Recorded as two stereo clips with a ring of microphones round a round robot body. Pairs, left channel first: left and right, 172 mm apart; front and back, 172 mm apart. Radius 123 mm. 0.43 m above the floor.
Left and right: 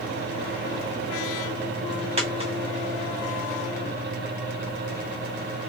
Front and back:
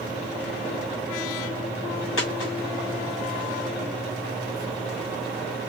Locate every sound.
2.2 s a dropped coin: 40° right, 8.5 m